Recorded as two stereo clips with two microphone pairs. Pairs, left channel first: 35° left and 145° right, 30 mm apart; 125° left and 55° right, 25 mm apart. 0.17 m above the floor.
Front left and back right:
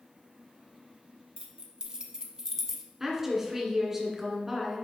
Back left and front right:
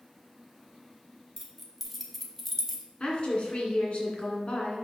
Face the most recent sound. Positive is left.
turn(degrees=145)